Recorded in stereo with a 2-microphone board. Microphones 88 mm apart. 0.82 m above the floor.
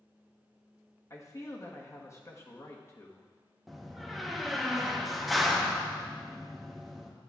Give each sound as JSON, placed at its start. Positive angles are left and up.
{"t": 1.1, "sound": "a man speaking", "side_deg": 35, "distance_m": 1.1}
{"t": 3.7, "sound": "a door slam", "side_deg": 0, "distance_m": 0.8}